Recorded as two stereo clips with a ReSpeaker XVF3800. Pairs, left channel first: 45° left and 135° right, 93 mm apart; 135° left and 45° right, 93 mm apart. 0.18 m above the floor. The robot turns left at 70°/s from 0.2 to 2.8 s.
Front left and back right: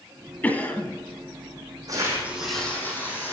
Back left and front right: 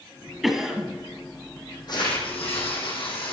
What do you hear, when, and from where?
0.4 s a cough: 40° left, 1.2 m; by 0.9 s 5° left, 1.2 m
1.9 s tearing paper: straight behind, 3.5 m; by 3.3 s 115° left, 3.5 m